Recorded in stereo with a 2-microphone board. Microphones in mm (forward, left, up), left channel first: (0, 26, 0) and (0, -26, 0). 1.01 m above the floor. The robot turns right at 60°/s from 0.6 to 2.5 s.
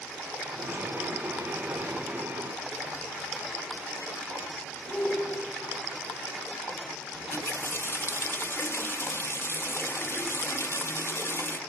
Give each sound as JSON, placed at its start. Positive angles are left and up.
{"t": 4.9, "sound": "a shout", "side_deg": 30, "distance_m": 8.5}
{"t": 7.1, "sound": "a running tap", "side_deg": 50, "distance_m": 1.0}